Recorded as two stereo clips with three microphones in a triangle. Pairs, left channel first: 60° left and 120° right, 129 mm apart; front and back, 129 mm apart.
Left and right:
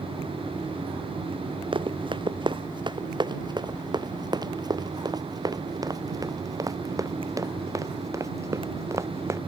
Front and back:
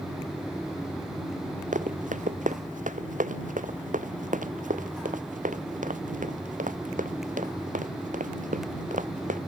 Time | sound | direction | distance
1.7 | running footsteps | 170° right | ?